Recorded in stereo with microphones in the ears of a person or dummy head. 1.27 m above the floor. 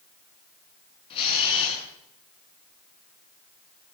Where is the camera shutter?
30° left (ahead or behind), 7 m.